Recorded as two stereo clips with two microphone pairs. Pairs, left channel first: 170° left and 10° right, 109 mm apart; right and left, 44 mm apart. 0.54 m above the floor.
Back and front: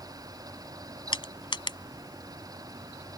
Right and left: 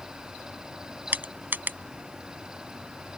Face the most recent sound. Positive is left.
turn(degrees=130)